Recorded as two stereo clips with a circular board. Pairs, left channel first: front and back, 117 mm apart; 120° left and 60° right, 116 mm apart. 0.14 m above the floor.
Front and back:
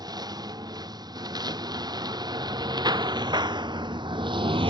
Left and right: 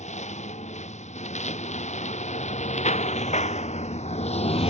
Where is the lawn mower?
125° left; by 4.7 s 140° left.